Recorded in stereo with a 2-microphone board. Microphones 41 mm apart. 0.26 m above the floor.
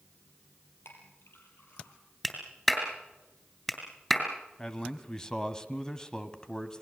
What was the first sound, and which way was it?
A clink, 80° left.